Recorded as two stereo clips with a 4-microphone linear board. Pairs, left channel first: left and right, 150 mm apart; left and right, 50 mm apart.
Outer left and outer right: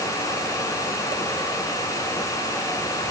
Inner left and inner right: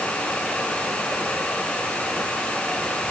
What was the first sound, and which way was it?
Only background noise.